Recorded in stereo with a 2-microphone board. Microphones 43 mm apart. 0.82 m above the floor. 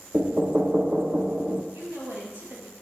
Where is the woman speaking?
55° right (ahead or behind), 5 m.